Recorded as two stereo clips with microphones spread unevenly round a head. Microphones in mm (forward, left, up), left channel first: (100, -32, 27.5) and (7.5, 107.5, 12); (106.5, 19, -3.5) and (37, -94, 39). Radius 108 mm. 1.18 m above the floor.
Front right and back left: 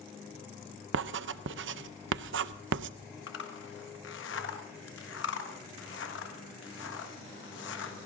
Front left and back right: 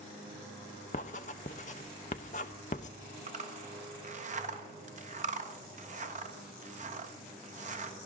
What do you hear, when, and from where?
0.9 s writing: 120° left, 0.6 m
3.3 s a zipper: 90° right, 1.6 m